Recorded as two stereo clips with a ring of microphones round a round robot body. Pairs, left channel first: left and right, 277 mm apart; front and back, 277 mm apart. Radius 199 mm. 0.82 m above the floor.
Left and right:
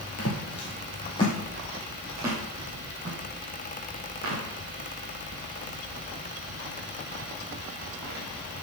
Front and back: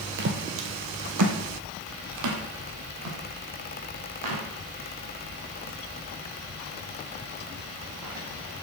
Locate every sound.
0.2 s footsteps: 140° left, 1.5 m; by 8.6 s 135° right, 5 m